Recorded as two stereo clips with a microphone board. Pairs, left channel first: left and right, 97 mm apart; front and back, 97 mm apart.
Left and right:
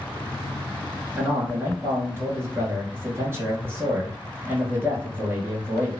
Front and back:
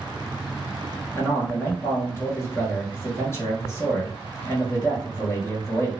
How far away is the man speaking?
About 1.8 m.